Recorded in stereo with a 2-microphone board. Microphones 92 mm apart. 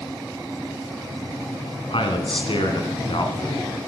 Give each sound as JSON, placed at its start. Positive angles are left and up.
{"t": 1.9, "sound": "a man speaking", "side_deg": 70, "distance_m": 2.5}